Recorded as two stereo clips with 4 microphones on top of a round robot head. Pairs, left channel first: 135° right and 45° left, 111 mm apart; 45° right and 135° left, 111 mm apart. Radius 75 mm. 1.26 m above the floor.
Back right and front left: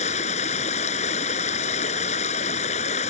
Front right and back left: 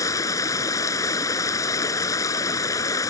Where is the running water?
110° right.